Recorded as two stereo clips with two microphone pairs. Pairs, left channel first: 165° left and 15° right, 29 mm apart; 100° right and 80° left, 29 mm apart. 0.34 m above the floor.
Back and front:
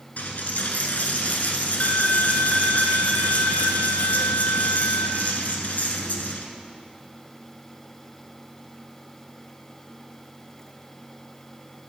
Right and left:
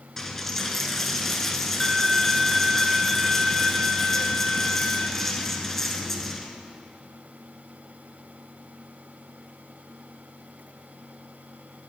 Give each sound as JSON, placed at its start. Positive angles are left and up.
{"t": 0.2, "sound": "a dropped coin", "azimuth_deg": -175, "distance_m": 1.0}